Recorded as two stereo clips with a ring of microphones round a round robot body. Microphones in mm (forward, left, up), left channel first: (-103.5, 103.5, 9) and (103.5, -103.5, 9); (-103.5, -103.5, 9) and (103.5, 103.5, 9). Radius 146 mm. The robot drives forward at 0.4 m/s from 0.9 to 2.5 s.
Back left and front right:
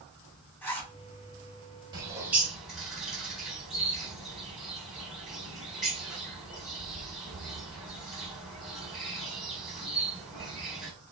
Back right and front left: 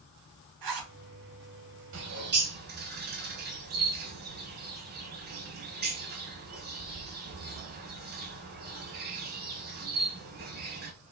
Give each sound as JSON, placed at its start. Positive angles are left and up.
{"t": 0.6, "sound": "a zipper", "azimuth_deg": 50, "distance_m": 1.5}
{"t": 1.9, "sound": "a bird", "azimuth_deg": 25, "distance_m": 0.8}